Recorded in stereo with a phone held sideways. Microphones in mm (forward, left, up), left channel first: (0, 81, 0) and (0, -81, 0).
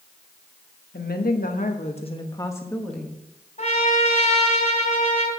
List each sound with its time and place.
0.9 s a woman speaking: 75° left (ahead or behind), 1.4 m; by 3.2 s centre (ahead or behind), 1.7 m
3.6 s a trumpet: 45° left (ahead or behind), 3 m